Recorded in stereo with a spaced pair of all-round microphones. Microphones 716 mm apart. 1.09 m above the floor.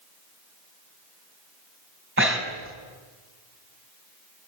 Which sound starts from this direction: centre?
Breathing, at 2.2 s.